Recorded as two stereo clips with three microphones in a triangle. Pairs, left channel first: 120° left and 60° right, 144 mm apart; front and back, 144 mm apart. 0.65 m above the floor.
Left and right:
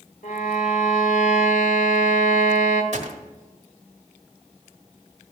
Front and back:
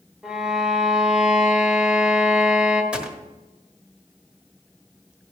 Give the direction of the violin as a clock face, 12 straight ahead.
9 o'clock.